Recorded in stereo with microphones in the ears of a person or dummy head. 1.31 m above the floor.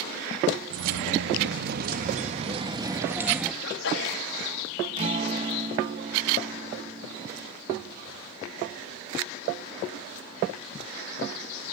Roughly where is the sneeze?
Left.